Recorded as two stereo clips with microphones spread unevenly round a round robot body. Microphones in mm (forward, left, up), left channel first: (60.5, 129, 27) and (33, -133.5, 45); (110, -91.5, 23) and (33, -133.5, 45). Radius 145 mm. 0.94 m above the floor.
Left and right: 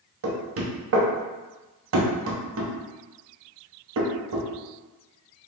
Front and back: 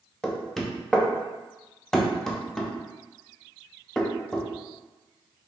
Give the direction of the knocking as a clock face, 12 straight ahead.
2 o'clock.